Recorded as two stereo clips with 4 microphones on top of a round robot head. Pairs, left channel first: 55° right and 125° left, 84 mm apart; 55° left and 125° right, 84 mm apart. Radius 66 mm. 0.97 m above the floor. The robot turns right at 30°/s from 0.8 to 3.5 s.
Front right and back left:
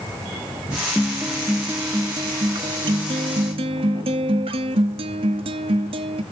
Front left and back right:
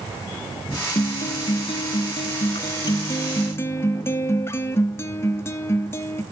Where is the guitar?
40° left, 1.0 m; by 6.2 s 115° left, 1.0 m.